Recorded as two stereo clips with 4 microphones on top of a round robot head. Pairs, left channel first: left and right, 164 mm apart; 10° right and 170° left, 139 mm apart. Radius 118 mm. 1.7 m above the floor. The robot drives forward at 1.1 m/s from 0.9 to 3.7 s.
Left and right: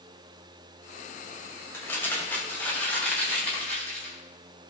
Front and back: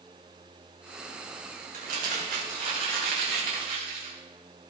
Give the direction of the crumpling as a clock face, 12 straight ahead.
7 o'clock.